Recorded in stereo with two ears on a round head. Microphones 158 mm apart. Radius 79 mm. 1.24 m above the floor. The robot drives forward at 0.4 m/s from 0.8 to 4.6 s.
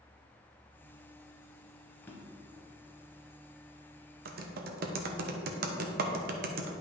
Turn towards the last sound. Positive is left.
turn(degrees=-55)  # may be behind; listen again after turning